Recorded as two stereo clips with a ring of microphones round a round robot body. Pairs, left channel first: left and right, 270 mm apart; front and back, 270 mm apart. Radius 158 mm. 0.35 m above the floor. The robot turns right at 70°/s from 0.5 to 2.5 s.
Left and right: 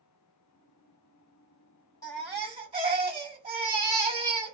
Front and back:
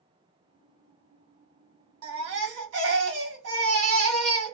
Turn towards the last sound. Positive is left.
turn(degrees=-160)